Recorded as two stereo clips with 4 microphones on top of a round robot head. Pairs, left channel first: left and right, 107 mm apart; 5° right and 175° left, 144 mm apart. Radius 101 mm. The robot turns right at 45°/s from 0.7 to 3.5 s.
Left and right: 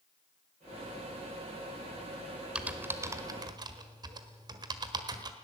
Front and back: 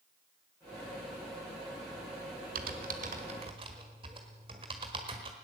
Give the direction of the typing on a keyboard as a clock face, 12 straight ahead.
6 o'clock.